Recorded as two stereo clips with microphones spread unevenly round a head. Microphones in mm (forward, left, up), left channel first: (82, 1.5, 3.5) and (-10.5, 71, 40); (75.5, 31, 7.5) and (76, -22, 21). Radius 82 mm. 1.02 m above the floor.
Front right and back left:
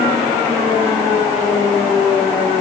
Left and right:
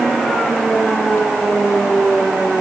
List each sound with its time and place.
Only background noise.